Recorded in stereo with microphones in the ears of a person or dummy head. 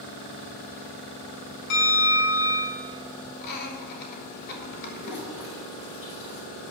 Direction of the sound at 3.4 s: 55° left (ahead or behind).